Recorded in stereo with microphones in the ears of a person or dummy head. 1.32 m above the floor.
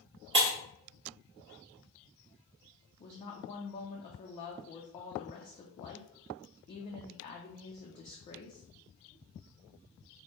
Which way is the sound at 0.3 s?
20° right (ahead or behind).